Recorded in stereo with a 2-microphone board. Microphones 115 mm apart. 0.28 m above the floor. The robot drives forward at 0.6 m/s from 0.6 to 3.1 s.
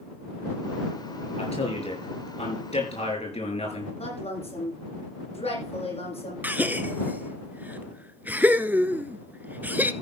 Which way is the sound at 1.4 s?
65° left (ahead or behind).